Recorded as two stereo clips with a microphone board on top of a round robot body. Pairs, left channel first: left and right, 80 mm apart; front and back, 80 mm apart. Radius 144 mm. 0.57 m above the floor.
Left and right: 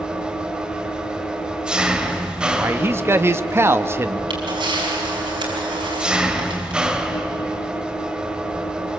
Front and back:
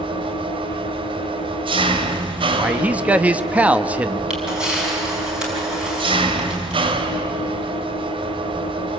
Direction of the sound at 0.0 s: 170° right.